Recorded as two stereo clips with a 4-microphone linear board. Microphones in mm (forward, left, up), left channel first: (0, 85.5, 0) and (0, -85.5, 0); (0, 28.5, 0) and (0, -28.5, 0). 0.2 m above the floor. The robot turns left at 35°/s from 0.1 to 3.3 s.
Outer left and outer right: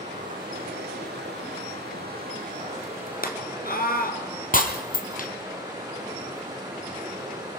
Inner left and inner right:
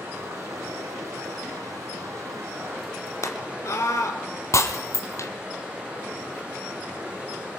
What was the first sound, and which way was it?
Running water, 45° right.